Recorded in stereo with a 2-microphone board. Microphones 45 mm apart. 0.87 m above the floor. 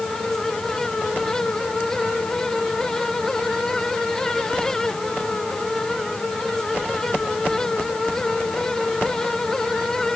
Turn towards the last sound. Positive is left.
No sound to turn to.